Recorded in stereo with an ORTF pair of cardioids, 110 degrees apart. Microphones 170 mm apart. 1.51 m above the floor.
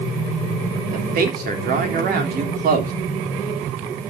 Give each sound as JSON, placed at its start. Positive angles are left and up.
{"t": 0.9, "sound": "a man speaking", "azimuth_deg": -65, "distance_m": 3.5}